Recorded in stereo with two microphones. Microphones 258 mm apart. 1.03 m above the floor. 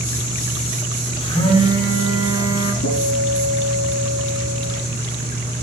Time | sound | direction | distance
1.2 | a phone buzzing | 25° left (ahead or behind) | 4 m
2.8 | a guitar | 60° left (ahead or behind) | 7 m